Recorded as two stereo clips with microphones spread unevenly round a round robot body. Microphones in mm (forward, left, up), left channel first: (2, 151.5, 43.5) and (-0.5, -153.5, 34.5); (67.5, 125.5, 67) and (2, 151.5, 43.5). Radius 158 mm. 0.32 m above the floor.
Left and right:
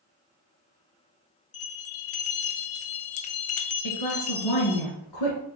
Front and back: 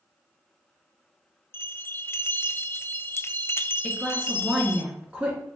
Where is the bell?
45° left, 0.7 m.